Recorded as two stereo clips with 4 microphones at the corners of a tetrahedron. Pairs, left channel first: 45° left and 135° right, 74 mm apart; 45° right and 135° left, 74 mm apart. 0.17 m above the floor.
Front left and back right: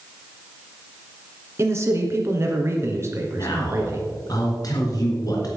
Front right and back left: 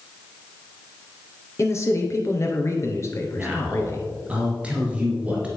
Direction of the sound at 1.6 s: 90° right.